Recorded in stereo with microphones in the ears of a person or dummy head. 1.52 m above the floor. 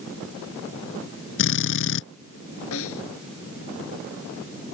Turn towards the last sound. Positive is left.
turn(degrees=75)  # may be behind; listen again after turning